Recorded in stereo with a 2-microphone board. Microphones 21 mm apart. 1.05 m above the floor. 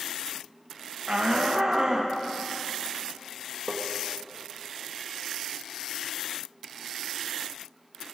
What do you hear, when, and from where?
1.1 s a shout: 45° right (ahead or behind), 0.7 m; by 2.1 s 25° right (ahead or behind), 1.4 m
3.7 s tapping: 35° right (ahead or behind), 1.2 m